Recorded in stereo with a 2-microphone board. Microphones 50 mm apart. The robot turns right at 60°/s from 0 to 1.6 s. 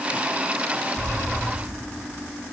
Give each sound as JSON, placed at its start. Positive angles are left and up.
{"t": 1.0, "sound": "an explosion", "azimuth_deg": 120, "distance_m": 2.5}